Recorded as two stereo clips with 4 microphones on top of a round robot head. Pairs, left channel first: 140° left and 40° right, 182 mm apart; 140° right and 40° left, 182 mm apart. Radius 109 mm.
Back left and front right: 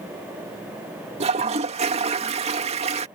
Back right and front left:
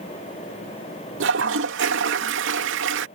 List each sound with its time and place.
1.2 s a toilet flushing: 20° left